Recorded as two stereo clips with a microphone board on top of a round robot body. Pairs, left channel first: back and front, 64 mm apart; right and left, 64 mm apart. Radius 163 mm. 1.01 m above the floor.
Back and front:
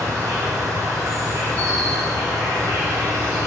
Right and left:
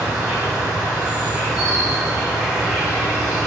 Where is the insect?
5° left, 1.6 m.